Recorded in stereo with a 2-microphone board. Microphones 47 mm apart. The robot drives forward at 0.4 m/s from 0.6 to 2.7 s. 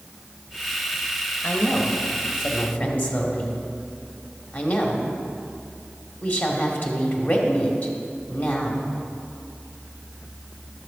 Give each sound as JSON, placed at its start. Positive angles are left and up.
{"t": 1.4, "sound": "a woman speaking", "side_deg": 50, "distance_m": 1.3}